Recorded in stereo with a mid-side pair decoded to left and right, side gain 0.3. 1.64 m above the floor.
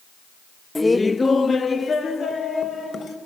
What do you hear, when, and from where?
0.8 s laughter: 20° left, 0.6 m; by 3.2 s 65° left, 2 m